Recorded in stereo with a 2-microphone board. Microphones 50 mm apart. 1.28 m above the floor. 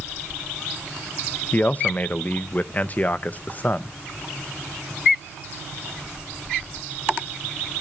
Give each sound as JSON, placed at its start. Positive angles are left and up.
{"t": 1.5, "sound": "a man speaking", "side_deg": 35, "distance_m": 0.5}